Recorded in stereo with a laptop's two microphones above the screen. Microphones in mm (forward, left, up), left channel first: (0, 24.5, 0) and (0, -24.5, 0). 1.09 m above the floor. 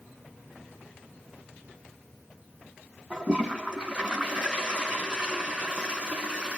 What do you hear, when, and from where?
3.1 s a toilet flushing: 20° right (ahead or behind), 2.5 m